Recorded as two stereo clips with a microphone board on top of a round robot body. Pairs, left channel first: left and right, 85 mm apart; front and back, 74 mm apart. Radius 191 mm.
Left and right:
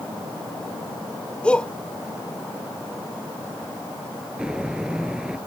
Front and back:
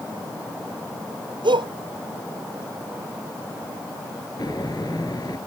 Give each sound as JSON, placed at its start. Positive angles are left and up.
{"t": 1.4, "sound": "a shout", "azimuth_deg": 170}
{"t": 4.4, "sound": "footsteps", "azimuth_deg": -10}